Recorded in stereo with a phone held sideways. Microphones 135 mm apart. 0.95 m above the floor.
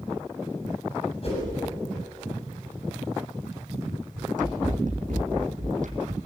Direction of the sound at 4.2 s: 75° right (ahead or behind).